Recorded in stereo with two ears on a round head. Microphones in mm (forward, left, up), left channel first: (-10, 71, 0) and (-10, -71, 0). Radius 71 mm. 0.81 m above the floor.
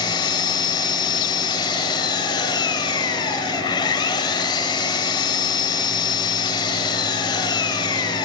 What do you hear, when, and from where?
0.0 s an engine running: 30° left (ahead or behind), 2.5 m